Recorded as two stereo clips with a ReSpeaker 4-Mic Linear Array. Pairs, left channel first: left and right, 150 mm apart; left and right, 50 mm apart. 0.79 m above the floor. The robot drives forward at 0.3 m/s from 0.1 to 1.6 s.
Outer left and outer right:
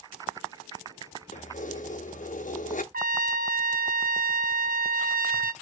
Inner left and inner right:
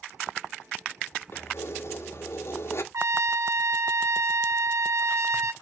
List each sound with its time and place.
1.3 s keys jangling: 55° left (ahead or behind), 0.8 m; by 2.8 s 60° left (ahead or behind), 0.8 m
2.9 s a trumpet: 75° right (ahead or behind), 0.5 m